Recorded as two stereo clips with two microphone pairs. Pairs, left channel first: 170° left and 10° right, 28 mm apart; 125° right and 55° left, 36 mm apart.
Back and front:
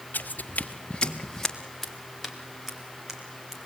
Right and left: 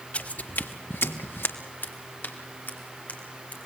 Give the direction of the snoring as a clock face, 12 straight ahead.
No snoring in this recording.